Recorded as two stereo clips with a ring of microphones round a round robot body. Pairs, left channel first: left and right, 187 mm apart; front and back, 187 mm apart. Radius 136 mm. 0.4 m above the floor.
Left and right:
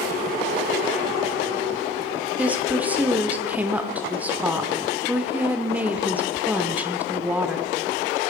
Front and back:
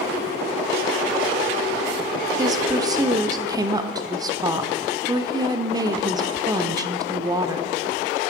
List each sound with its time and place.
2.4 s a woman speaking: 155° right, 0.8 m